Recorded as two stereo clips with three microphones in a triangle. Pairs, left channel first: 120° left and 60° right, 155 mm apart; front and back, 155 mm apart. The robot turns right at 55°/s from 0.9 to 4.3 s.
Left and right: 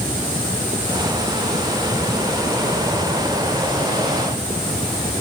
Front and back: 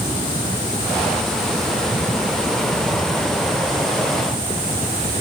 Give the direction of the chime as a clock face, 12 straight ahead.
I don't hear a chime.